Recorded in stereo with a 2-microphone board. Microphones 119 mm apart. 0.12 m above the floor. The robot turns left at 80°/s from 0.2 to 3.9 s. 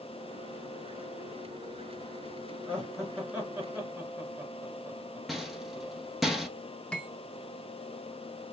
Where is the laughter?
10° left (ahead or behind), 1.8 m; by 6.0 s 20° right (ahead or behind), 1.8 m.